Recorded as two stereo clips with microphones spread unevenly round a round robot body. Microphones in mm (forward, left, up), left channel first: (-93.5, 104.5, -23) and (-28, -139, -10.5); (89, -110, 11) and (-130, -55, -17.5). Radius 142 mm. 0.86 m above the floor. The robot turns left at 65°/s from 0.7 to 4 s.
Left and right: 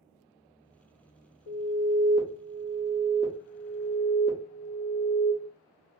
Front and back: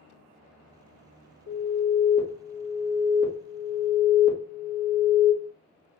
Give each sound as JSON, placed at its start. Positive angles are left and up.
{"t": 1.5, "sound": "an alarm", "azimuth_deg": 155, "distance_m": 0.9}